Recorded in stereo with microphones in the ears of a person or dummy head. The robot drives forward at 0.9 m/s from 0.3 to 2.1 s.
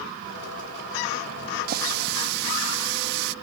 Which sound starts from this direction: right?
A running tap, at 1.7 s.